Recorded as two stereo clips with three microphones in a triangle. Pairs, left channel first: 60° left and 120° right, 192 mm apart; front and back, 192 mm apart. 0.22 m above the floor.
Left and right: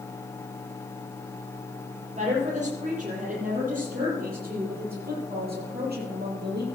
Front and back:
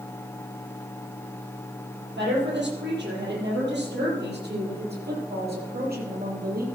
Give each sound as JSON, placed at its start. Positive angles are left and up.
{"t": 2.2, "sound": "a woman speaking", "azimuth_deg": -170, "distance_m": 7.0}